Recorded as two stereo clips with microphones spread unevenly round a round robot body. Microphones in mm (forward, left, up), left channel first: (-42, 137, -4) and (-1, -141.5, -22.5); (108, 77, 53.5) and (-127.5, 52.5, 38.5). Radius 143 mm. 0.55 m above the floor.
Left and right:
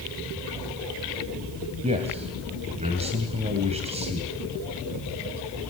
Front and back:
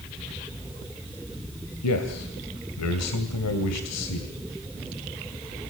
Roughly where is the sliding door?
I don't hear a sliding door.